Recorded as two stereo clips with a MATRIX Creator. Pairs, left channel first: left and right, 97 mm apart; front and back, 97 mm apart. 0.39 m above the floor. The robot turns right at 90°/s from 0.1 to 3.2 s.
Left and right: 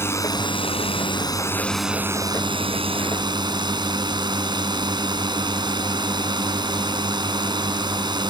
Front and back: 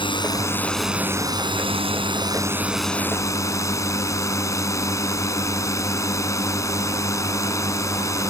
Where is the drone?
25° left; by 8.3 s 55° right.